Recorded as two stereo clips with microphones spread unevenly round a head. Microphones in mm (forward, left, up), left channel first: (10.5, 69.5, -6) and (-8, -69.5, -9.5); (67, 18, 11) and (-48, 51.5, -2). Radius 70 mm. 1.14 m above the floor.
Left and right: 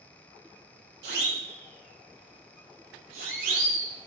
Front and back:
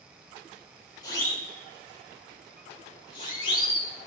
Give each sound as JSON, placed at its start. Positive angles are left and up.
{"t": 1.0, "sound": "a siren", "azimuth_deg": -80, "distance_m": 9.5}